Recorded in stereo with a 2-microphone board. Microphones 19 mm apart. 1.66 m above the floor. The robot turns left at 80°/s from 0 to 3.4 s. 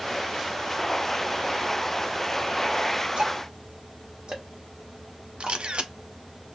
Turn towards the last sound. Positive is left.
turn(degrees=-70)  # may be behind; listen again after turning